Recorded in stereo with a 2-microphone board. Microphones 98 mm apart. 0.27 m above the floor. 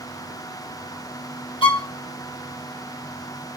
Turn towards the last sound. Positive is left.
turn(degrees=50)  # may be behind; listen again after turning